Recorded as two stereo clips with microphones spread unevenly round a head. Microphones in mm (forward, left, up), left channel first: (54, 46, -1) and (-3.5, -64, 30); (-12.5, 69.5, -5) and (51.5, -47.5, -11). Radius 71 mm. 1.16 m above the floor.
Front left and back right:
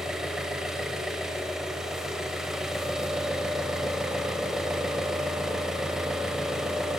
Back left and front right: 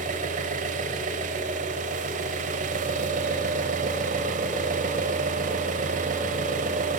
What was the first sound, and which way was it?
An engine running, 40° right.